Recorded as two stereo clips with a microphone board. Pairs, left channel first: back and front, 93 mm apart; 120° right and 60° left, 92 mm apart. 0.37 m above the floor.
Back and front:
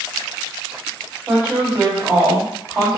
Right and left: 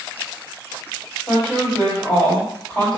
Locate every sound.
1.3 s a woman speaking: 50° right, 1.8 m